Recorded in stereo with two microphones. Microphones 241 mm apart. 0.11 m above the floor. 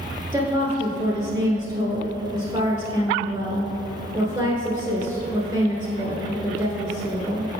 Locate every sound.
0.3 s a woman speaking: 10° right (ahead or behind), 1.5 m